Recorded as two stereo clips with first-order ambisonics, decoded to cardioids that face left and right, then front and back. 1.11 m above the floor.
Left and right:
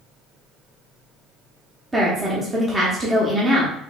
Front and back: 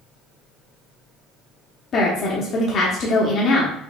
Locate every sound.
1.9 s a woman speaking: 20° right, 0.7 m